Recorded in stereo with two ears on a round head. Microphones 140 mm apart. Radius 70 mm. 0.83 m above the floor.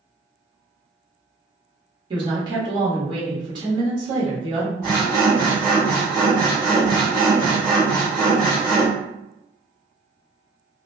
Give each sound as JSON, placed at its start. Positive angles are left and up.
{"t": 2.1, "sound": "a woman speaking", "side_deg": -30, "distance_m": 1.2}
{"t": 4.8, "sound": "sawing", "side_deg": -10, "distance_m": 1.7}